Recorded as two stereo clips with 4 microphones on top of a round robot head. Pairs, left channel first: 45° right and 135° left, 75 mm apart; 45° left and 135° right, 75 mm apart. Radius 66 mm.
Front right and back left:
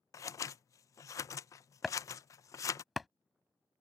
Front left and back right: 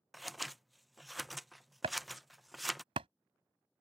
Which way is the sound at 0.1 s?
45° right.